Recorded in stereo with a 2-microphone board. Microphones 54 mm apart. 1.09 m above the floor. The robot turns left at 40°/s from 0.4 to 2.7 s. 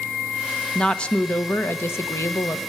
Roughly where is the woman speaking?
Behind.